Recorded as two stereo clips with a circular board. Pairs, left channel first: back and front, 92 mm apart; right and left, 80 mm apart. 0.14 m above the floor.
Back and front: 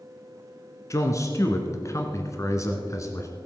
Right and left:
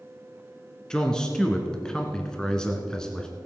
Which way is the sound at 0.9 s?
165° right.